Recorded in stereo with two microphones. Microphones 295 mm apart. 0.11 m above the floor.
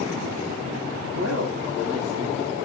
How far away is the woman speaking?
About 3 m.